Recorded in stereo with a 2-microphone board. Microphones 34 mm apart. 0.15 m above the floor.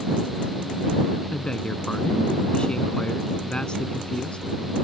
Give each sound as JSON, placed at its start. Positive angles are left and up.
{"t": 1.3, "sound": "a man speaking", "side_deg": 30}